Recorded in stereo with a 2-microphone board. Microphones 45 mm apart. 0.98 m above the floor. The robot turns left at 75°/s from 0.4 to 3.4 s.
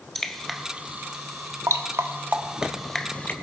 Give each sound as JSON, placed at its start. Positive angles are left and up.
{"t": 0.1, "sound": "dripping", "side_deg": 5, "distance_m": 1.1}